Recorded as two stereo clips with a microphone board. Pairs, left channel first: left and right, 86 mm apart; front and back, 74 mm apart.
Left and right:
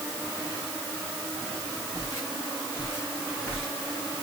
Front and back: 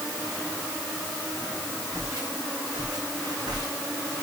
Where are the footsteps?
140° left, 6 m; by 3.7 s 160° left, 5.5 m.